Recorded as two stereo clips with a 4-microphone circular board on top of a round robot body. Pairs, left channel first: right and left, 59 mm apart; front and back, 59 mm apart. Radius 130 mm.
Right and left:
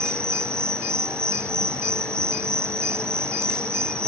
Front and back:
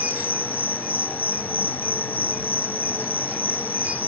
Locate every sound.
0.0 s an insect: 55° left